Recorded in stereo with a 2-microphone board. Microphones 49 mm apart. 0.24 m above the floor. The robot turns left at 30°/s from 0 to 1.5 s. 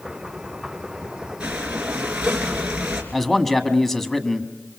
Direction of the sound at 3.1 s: 5° left (ahead or behind).